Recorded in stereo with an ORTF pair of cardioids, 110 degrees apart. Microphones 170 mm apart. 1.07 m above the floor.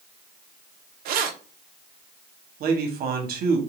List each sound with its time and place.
1.1 s keys jangling: 60° right, 0.5 m
2.6 s a man speaking: 60° right, 1.0 m